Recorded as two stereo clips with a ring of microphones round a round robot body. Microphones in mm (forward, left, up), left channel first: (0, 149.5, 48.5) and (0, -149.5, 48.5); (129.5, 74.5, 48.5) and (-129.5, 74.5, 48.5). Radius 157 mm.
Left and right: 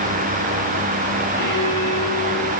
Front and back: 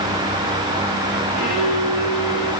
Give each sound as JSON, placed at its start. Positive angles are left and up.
{"t": 1.4, "sound": "a violin", "azimuth_deg": -90, "distance_m": 9.0}